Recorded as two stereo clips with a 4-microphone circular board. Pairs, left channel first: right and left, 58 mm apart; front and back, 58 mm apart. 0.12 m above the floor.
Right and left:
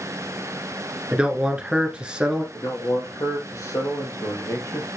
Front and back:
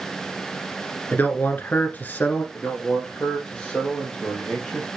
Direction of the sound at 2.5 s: 75° right.